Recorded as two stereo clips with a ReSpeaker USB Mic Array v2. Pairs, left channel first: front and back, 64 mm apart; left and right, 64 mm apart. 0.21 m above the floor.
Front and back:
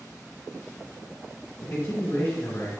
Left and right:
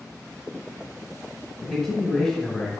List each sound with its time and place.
1.6 s a man speaking: 25° left, 1.1 m